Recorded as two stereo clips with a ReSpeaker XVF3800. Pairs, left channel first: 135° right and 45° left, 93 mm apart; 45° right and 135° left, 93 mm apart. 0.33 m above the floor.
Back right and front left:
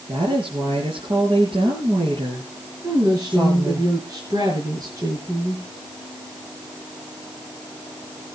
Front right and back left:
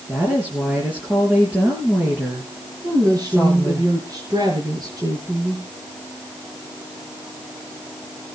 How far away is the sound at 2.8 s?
About 6 m.